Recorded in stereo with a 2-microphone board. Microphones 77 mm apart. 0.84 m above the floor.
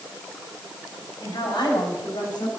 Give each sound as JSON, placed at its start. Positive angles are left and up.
{"t": 1.2, "sound": "a woman speaking", "side_deg": 70, "distance_m": 5.5}